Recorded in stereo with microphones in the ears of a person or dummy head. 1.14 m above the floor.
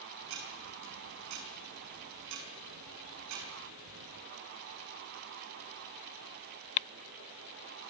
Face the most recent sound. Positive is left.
turn(degrees=-65)  # may be behind; listen again after turning